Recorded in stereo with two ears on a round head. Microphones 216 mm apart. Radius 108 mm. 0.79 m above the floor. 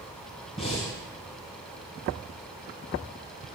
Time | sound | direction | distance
0.6 | breathing | 25° left (ahead or behind) | 3.5 m